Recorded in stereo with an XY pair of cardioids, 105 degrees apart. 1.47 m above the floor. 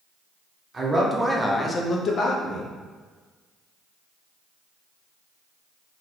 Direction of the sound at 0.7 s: 30° right.